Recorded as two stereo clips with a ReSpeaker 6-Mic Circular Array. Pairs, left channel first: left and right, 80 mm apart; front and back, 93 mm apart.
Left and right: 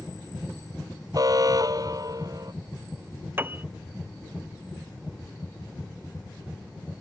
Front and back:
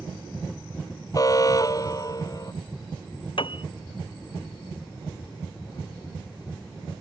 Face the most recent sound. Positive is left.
turn(degrees=-25)